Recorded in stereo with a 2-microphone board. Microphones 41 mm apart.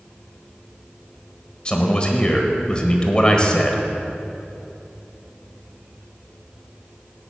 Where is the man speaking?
25° left (ahead or behind), 1.4 m.